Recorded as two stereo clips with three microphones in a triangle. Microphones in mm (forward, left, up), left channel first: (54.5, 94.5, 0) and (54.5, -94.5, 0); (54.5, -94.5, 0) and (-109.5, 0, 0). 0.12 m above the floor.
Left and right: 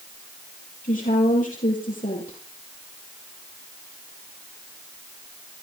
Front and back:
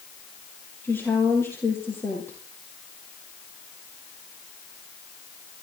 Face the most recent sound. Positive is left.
turn(degrees=45)